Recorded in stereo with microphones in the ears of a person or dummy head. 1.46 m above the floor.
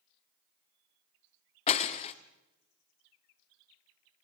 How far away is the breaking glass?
About 1.4 m.